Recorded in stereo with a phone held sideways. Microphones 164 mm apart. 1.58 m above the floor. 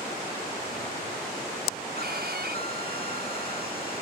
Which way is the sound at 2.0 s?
75° right (ahead or behind).